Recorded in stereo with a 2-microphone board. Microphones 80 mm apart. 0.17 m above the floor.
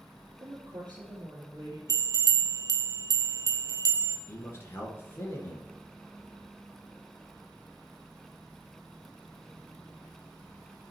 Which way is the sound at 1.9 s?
55° right (ahead or behind).